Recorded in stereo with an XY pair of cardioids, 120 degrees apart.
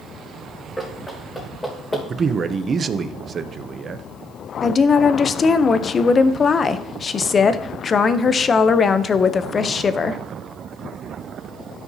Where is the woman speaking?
35° left, 0.6 m.